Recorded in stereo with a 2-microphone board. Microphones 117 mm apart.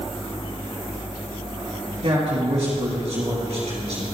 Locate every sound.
2.0 s a man speaking: 65° right (ahead or behind), 3.5 m